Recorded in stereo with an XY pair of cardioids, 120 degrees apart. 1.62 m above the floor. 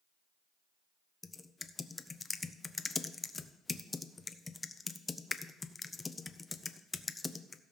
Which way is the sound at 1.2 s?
20° left.